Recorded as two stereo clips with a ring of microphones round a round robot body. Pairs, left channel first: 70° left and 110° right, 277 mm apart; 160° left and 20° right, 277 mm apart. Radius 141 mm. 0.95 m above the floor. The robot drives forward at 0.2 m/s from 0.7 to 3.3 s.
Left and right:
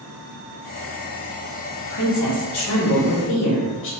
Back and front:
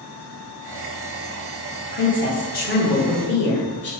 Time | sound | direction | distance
1.8 | a woman speaking | 95° left | 1.3 m